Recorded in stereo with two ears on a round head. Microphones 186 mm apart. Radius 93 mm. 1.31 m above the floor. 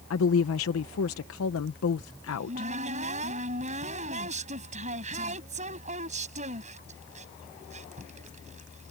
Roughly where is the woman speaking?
Left.